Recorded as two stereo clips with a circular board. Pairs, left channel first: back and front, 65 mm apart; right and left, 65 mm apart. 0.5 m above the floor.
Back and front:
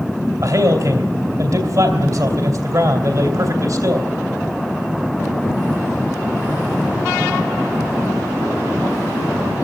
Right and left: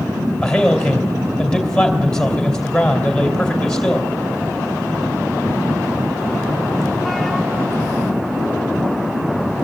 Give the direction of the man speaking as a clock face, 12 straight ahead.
12 o'clock.